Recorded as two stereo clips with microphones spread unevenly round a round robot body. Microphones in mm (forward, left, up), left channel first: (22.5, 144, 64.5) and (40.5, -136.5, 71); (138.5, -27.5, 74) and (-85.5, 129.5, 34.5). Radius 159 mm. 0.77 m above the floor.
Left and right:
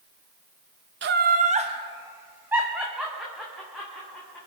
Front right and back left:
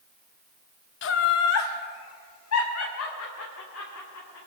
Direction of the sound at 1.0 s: 65° right.